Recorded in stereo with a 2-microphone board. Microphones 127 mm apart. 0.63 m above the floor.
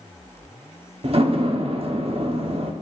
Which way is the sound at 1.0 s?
55° right (ahead or behind).